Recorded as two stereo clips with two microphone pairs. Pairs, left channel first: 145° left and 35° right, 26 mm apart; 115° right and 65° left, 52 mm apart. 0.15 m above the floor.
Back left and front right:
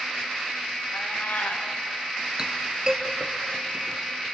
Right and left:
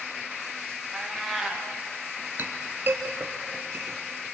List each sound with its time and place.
0.9 s a cat meowing: 155° left, 5 m
2.4 s a clink: 20° left, 2 m